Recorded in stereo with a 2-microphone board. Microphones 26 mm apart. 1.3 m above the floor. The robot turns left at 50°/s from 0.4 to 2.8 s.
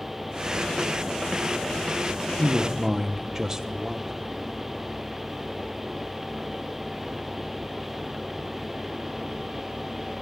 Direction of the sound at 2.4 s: Centre (ahead or behind).